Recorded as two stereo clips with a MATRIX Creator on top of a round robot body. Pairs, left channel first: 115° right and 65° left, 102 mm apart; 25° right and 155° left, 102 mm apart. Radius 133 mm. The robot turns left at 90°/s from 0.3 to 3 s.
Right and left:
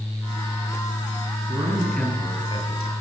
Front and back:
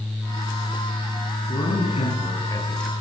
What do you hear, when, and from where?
1.5 s a man speaking: 15° left, 7.5 m; by 2.9 s 110° right, 7.5 m